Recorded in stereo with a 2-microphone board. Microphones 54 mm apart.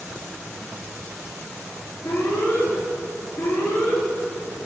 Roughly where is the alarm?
Left.